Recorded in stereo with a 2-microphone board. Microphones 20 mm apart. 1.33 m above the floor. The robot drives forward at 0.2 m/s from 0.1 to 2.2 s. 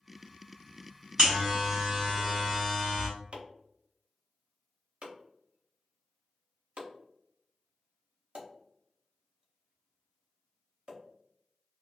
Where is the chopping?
55° right (ahead or behind), 0.7 m.